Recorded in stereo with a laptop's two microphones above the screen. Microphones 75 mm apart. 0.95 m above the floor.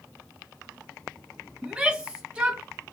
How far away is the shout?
About 1.0 m.